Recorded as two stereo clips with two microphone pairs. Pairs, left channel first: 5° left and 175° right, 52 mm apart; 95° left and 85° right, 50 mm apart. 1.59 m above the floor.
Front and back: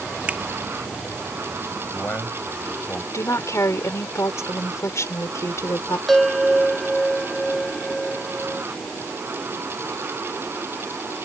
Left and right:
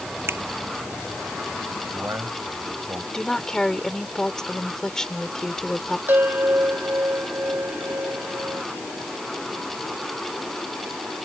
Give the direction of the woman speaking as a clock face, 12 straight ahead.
11 o'clock.